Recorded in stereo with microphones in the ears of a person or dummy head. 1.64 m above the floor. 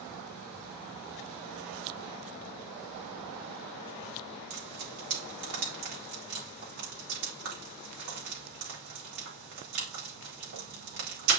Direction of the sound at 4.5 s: 50° right (ahead or behind).